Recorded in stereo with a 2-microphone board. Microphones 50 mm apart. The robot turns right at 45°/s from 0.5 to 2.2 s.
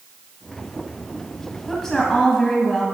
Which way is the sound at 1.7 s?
5° left (ahead or behind).